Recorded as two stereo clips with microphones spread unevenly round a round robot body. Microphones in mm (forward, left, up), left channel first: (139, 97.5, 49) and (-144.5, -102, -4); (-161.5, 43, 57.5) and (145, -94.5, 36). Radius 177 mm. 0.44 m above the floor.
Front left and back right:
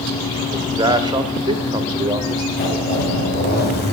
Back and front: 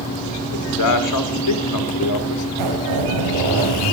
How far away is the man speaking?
About 1.6 m.